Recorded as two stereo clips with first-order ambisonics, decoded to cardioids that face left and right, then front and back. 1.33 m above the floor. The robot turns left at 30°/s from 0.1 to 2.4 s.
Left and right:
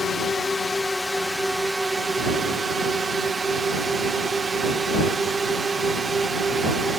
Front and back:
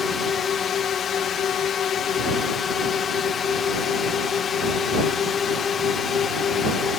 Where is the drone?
40° left; by 7.0 s 30° right.